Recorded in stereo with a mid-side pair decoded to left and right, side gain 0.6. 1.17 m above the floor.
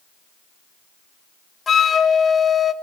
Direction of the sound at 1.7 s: 30° left.